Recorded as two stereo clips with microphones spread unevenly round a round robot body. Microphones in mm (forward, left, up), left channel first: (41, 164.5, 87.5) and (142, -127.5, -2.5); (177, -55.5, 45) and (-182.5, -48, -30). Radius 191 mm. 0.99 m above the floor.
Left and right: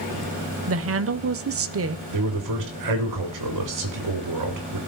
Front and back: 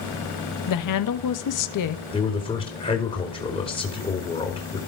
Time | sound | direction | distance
0.7 | a woman speaking | 40° right | 1.4 m
2.1 | a man speaking | 80° right | 3.5 m